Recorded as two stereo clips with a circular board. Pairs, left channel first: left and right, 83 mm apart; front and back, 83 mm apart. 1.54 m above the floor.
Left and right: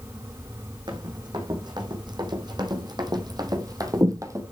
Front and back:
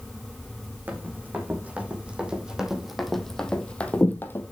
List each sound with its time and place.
0.9 s running footsteps: 115° right, 4 m; by 4.4 s 55° right, 2.5 m